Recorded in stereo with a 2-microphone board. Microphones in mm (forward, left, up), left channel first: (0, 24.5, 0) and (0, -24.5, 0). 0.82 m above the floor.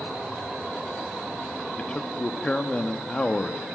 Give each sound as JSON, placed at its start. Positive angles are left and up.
{"t": 1.8, "sound": "a man speaking", "side_deg": 20, "distance_m": 1.2}